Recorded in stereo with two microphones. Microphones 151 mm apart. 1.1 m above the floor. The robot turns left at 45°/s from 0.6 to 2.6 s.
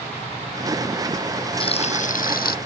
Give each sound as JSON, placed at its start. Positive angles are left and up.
{"t": 1.6, "sound": "frying", "azimuth_deg": 145}